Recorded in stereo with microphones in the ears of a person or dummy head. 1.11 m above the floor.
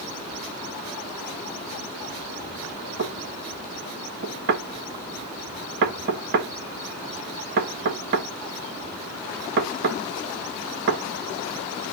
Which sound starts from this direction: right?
Knocking, at 3.0 s.